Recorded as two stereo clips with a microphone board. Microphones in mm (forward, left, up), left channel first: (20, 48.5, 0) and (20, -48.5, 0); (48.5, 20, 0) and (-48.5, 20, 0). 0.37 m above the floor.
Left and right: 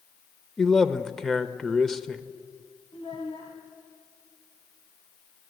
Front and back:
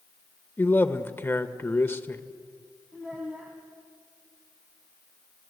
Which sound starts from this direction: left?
A child speaking, at 2.9 s.